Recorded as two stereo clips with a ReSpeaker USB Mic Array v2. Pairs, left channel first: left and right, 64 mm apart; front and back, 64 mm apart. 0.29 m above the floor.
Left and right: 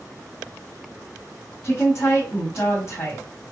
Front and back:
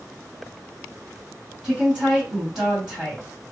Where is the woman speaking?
105° left, 1.9 m.